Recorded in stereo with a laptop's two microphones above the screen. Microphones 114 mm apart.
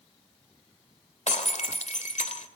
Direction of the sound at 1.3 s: 85° left.